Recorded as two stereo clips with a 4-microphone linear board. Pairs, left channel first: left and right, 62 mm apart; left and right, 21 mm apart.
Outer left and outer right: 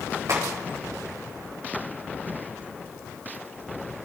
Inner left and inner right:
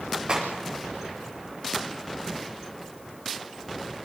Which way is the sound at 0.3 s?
55° right (ahead or behind).